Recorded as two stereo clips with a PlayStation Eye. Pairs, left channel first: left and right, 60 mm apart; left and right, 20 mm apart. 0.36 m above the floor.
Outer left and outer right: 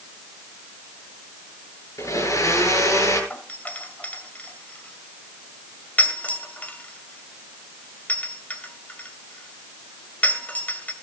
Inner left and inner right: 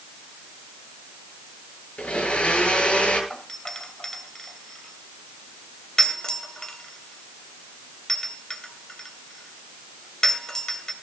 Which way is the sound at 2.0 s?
65° left (ahead or behind).